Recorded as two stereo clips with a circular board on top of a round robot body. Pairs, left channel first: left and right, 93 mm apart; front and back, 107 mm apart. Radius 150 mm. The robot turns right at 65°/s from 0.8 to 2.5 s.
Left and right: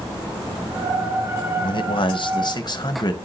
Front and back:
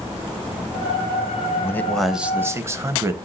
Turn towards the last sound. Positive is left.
turn(degrees=120)